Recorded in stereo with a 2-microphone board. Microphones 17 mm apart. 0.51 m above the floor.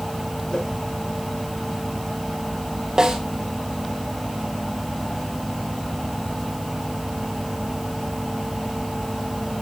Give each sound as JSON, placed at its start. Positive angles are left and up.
{"t": 0.5, "sound": "a whoosh", "side_deg": 75, "distance_m": 6.5}
{"t": 3.0, "sound": "a snare drum", "side_deg": -45, "distance_m": 3.0}